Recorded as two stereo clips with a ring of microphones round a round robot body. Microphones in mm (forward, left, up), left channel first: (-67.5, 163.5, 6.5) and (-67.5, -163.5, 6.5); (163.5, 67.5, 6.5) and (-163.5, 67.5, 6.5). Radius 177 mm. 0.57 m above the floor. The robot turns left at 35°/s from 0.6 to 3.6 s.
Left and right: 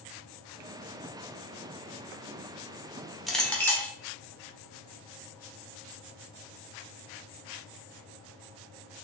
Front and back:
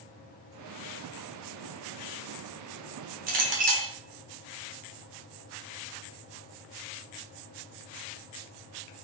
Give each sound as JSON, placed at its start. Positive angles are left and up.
{"t": 3.3, "sound": "a clink", "azimuth_deg": 180, "distance_m": 0.7}